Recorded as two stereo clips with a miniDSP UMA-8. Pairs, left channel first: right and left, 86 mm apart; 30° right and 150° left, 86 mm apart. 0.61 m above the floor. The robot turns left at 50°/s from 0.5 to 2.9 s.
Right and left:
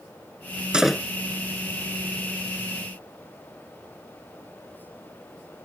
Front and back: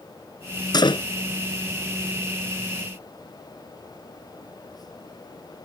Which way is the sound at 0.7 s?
10° left.